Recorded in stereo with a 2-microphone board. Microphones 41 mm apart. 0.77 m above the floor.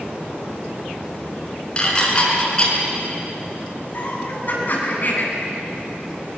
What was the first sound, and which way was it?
Dishes clattering, 20° left (ahead or behind).